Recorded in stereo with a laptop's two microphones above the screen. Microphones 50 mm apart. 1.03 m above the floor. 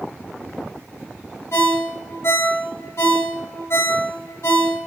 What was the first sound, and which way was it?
A ringtone, 60° left (ahead or behind).